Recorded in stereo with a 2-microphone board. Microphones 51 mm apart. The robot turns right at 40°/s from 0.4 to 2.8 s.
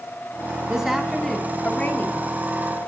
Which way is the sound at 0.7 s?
15° right.